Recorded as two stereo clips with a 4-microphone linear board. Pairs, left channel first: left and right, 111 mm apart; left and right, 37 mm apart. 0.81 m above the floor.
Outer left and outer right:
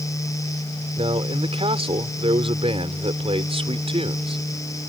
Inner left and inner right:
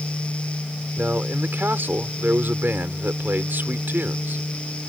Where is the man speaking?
60° right (ahead or behind).